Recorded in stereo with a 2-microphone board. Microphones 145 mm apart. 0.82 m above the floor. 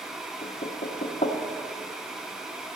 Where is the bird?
I don't hear a bird.